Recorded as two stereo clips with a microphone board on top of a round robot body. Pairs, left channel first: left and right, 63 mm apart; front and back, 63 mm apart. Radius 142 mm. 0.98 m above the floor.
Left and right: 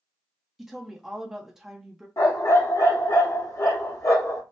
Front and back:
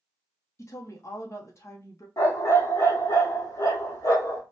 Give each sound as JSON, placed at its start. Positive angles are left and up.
{"t": 0.6, "sound": "a woman speaking", "azimuth_deg": -10, "distance_m": 0.8}
{"t": 2.2, "sound": "a dog barking", "azimuth_deg": 45, "distance_m": 0.8}